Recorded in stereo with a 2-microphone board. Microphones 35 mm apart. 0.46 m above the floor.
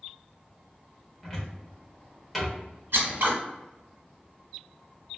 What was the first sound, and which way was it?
A cupboard door, centre (ahead or behind).